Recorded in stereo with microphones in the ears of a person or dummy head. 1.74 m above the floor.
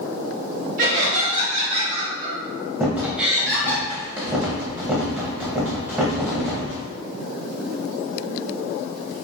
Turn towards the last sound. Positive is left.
turn(degrees=-5)  # may be behind; listen again after turning